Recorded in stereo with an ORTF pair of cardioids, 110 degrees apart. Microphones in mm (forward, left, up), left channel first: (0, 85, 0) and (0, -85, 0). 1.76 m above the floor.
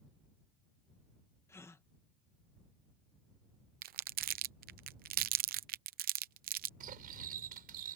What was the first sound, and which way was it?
A gasp, 15° left.